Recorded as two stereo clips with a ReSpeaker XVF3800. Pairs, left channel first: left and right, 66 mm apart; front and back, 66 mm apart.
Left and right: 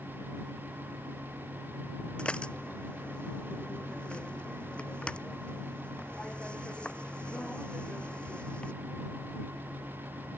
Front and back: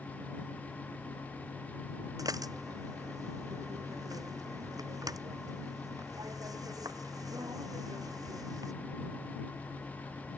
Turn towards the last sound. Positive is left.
turn(degrees=165)